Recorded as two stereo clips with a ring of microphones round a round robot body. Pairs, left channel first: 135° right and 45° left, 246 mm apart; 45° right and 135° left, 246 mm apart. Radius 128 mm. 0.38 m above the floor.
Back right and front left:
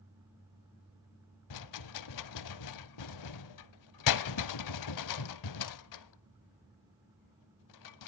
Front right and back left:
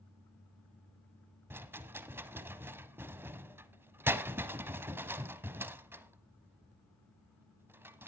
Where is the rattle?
145° right, 0.6 m.